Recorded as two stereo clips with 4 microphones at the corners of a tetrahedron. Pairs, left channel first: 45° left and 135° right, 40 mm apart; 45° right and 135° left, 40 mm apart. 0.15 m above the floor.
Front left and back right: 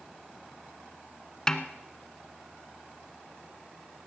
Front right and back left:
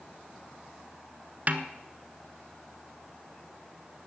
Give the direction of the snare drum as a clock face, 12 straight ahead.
8 o'clock.